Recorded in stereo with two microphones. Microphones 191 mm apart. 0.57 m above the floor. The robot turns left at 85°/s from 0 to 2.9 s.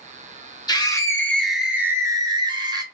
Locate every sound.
0.7 s a scream: 20° left (ahead or behind), 0.6 m; by 2.8 s 20° right (ahead or behind), 0.6 m